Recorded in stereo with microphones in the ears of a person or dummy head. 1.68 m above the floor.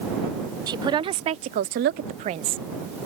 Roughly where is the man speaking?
Centre.